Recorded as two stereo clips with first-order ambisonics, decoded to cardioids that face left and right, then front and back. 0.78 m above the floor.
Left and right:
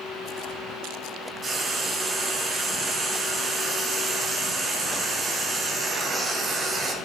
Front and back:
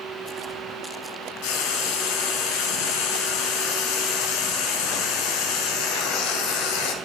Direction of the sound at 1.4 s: 15° right.